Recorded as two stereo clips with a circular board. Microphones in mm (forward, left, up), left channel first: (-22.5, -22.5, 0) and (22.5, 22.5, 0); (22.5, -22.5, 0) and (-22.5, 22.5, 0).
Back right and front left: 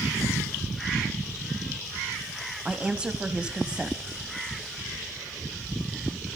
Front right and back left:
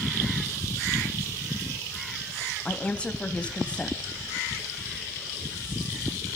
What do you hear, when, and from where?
2.6 s a woman speaking: 5° right, 1.2 m